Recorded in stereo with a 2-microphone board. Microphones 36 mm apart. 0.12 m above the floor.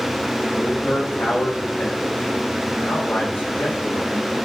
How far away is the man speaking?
About 4.5 m.